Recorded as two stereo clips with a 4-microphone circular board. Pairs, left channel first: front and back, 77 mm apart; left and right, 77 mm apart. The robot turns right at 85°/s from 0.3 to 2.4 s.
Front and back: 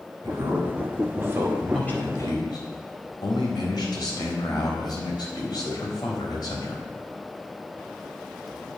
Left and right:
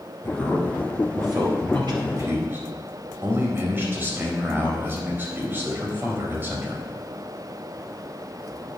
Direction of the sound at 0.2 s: 155° left.